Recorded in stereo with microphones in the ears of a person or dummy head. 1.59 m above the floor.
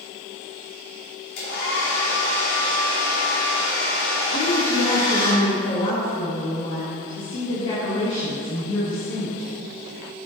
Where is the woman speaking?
40° left (ahead or behind), 2.5 m.